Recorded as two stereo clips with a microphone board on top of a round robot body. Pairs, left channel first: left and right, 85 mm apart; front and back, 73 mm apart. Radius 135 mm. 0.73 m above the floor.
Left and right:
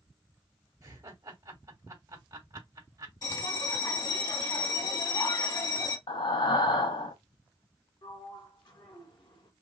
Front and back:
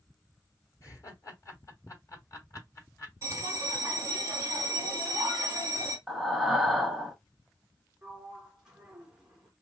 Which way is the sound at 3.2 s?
135° left.